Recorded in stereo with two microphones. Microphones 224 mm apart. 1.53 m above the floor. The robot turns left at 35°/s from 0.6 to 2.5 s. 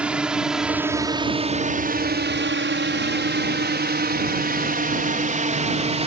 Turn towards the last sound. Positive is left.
turn(degrees=-30)  # may be behind; listen again after turning